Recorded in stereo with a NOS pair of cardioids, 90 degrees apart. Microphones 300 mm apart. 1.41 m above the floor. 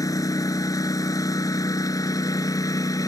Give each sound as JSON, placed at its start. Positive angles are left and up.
{"t": 0.0, "sound": "a lawn mower", "azimuth_deg": 10}